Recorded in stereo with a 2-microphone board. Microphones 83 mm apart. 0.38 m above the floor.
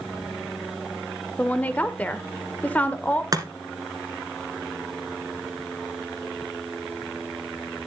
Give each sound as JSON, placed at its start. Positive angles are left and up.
{"t": 1.4, "sound": "a woman speaking", "side_deg": 20, "distance_m": 1.0}
{"t": 3.3, "sound": "chopping", "side_deg": -50, "distance_m": 1.6}